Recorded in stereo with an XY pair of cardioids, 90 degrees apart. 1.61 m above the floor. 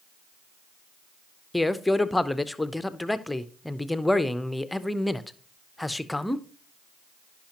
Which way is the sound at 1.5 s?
10° left.